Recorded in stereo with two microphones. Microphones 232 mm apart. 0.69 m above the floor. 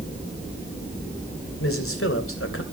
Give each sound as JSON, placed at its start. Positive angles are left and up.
{"t": 1.6, "sound": "a man speaking", "side_deg": 70, "distance_m": 3.0}